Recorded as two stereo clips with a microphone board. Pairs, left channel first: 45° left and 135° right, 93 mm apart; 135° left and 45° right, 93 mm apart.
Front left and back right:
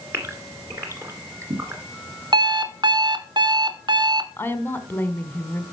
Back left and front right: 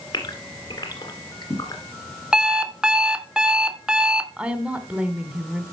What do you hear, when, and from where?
0.1 s a gasp: 170° left, 2 m
2.3 s an alarm clock: 125° right, 0.8 m
4.4 s a woman speaking: 15° left, 1.2 m